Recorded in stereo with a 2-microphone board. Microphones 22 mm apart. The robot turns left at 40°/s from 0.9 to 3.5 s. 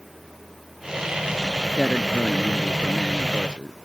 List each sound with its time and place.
1.8 s a man speaking: 20° left; by 3.7 s 50° right